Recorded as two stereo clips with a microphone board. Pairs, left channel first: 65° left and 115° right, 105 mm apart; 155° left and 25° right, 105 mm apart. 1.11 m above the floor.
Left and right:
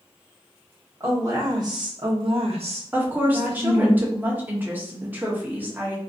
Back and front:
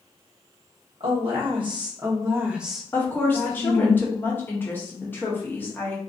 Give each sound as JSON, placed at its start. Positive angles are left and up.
{"t": 1.0, "sound": "a woman speaking", "azimuth_deg": -50, "distance_m": 1.3}
{"t": 2.9, "sound": "a woman speaking", "azimuth_deg": -155, "distance_m": 0.7}